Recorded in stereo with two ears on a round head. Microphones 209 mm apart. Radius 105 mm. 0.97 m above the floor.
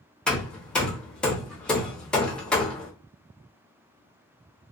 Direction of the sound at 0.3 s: 5° left (ahead or behind).